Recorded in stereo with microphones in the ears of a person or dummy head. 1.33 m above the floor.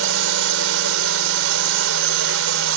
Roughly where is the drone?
Right.